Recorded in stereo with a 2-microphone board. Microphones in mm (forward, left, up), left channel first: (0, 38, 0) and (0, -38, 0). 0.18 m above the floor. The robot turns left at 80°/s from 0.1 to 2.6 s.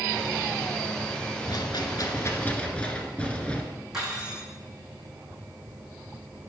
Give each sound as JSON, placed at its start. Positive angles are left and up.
{"t": 1.5, "sound": "a rattle", "azimuth_deg": 105, "distance_m": 1.2}
{"t": 3.9, "sound": "cutlery clinking", "side_deg": -10, "distance_m": 5.0}